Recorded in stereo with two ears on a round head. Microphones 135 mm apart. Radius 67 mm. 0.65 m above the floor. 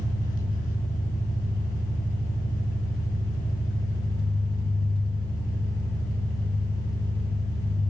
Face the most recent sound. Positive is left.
turn(degrees=60)  # may be behind; listen again after turning